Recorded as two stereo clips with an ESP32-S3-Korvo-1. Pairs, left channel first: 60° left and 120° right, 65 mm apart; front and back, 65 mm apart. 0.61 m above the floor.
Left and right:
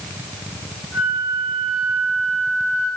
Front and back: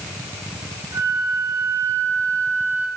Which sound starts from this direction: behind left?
A flute, at 0.9 s.